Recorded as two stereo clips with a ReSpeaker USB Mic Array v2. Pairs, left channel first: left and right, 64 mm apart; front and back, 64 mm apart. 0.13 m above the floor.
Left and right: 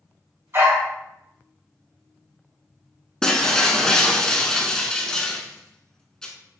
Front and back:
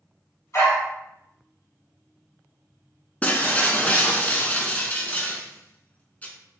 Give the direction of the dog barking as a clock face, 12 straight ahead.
1 o'clock.